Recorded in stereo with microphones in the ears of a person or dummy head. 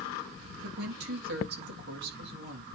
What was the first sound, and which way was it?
A woman speaking, 70° right (ahead or behind).